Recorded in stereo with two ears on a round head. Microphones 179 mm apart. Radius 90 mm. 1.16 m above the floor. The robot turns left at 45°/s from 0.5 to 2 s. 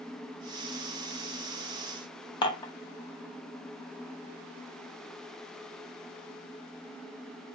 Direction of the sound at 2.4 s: 20° left (ahead or behind).